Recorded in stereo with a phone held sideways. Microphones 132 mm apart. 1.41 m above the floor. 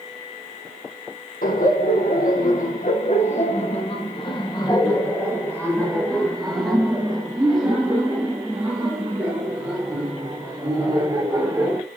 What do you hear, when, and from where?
1.4 s laughter: 80° left, 2 m; by 11.8 s 20° right (ahead or behind), 5.5 m